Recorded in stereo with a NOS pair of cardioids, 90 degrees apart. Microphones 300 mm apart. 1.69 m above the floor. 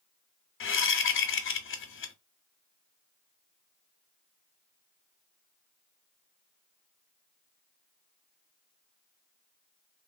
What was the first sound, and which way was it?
A whoosh, 45° left.